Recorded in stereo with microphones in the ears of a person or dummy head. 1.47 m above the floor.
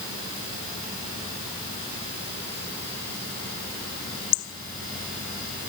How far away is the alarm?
I don't hear an alarm.